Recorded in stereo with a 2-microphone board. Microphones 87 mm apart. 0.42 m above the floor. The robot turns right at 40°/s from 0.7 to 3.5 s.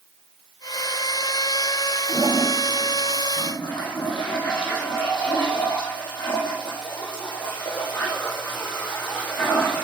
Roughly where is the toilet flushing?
Ahead.